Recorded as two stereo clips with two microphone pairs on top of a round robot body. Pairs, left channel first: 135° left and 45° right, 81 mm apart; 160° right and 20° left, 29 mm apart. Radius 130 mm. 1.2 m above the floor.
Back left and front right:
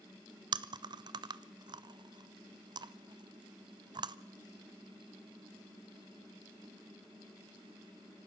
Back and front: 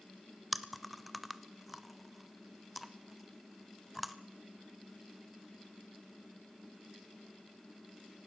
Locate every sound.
0.5 s chewing: 70° right, 0.6 m